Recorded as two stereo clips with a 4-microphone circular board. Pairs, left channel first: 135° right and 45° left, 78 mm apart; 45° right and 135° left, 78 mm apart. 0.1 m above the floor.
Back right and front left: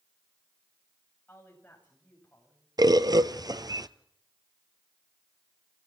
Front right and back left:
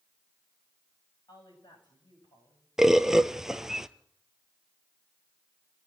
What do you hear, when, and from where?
1.3 s a woman speaking: 65° right, 9.5 m
2.8 s a bird: 50° left, 0.8 m